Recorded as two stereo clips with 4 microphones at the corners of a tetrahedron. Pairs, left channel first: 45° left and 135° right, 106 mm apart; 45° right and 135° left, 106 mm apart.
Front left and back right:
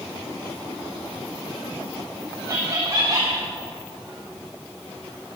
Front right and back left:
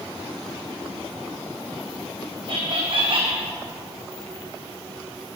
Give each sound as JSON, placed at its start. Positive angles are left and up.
{"t": 2.5, "sound": "laughter", "azimuth_deg": 170, "distance_m": 1.1}